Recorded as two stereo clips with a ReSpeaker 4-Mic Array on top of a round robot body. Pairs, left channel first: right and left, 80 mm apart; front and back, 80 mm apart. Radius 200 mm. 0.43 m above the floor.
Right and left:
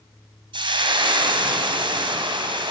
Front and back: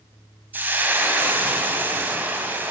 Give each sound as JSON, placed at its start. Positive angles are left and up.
{"t": 0.5, "sound": "frying", "azimuth_deg": 115, "distance_m": 2.5}